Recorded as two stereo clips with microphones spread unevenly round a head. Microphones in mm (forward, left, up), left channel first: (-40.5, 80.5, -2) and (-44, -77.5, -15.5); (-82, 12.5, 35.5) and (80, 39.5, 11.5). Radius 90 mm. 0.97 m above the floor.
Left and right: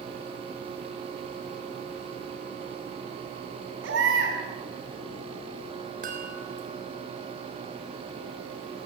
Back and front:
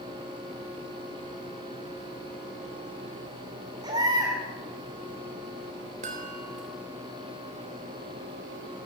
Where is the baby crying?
60° right, 5 m.